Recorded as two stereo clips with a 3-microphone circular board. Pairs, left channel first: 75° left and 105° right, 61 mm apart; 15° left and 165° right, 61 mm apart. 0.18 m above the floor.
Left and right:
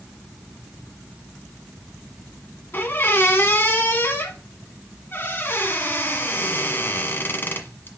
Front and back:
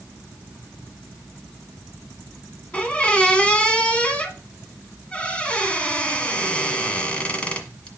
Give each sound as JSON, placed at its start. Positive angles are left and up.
{"t": 2.7, "sound": "a squeak", "azimuth_deg": 75, "distance_m": 1.2}